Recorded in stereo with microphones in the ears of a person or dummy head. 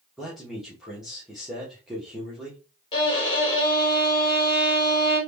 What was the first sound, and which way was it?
A man speaking, centre (ahead or behind).